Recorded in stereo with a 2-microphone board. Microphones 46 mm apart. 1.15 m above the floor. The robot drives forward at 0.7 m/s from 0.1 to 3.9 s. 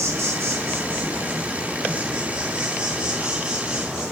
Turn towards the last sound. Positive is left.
turn(degrees=-15)  # may be behind; listen again after turning